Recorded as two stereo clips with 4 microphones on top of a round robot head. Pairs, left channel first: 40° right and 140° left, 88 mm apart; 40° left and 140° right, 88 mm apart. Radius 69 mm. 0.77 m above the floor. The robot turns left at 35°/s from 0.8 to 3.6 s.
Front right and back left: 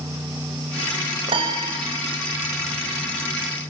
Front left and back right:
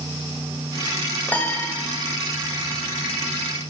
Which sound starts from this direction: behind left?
A piano, at 1.3 s.